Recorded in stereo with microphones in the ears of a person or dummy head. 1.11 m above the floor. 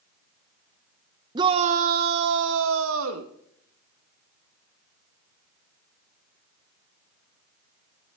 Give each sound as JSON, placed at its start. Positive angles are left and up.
{"t": 1.4, "sound": "a shout", "side_deg": -20, "distance_m": 0.5}